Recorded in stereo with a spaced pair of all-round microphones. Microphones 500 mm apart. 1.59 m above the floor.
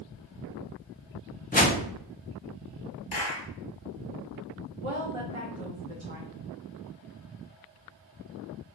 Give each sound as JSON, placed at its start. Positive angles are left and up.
{"t": 1.5, "sound": "a whoosh", "side_deg": 15, "distance_m": 0.6}
{"t": 3.1, "sound": "a clap", "side_deg": 75, "distance_m": 1.2}
{"t": 4.8, "sound": "a woman speaking", "side_deg": -70, "distance_m": 1.1}